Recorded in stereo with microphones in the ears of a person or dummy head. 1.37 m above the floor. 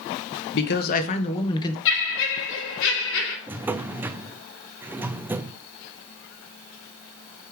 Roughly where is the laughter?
Left.